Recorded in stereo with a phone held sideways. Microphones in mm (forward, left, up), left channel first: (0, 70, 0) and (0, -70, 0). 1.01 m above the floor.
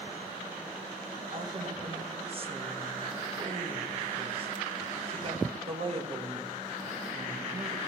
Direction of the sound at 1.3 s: 40° right (ahead or behind).